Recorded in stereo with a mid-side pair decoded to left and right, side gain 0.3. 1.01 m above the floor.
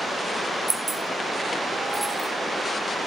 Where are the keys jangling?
40° right, 1.0 m; by 2.3 s 20° right, 1.9 m.